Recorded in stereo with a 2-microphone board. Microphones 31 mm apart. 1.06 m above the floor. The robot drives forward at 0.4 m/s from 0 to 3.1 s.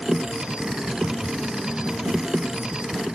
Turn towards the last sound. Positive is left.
No sound to turn to.